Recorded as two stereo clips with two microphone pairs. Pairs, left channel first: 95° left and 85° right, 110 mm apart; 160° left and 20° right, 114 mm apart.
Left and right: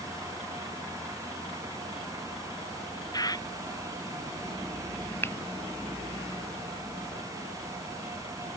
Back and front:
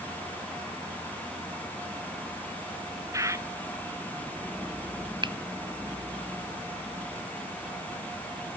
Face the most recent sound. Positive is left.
turn(degrees=25)